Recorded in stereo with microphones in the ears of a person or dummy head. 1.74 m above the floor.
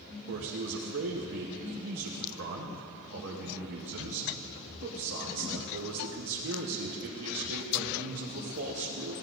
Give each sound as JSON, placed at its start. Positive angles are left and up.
{"t": 0.3, "sound": "a man speaking", "side_deg": -55, "distance_m": 1.0}